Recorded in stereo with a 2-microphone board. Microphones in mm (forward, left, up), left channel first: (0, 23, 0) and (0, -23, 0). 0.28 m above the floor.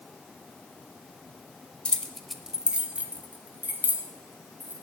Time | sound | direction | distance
1.9 | keys jangling | 25° left (ahead or behind) | 0.8 m